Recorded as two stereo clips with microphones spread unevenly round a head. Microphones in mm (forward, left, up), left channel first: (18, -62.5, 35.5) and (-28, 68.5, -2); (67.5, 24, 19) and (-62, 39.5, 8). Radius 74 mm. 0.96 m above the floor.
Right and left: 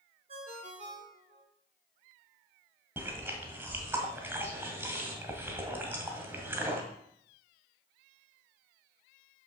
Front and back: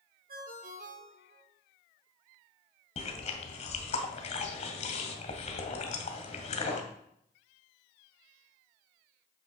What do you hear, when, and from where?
0.3 s a ringtone: 155° left, 3.5 m
3.0 s chewing: 30° left, 1.8 m